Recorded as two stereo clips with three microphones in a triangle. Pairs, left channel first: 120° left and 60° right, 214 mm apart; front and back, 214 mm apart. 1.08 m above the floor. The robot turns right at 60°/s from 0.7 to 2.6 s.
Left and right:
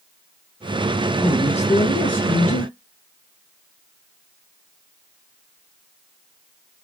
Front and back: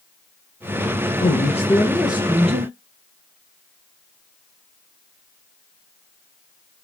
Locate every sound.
1.2 s a man speaking: 40° left, 0.6 m; by 2.7 s 125° left, 0.6 m